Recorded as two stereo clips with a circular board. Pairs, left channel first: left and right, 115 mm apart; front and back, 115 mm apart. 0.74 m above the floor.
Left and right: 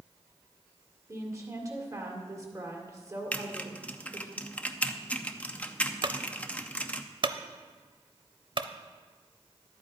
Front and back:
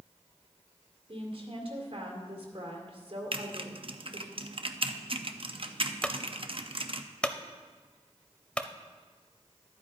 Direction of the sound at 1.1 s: 150° right.